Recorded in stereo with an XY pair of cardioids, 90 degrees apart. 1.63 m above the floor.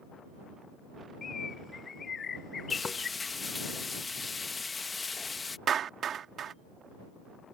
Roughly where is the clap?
Right.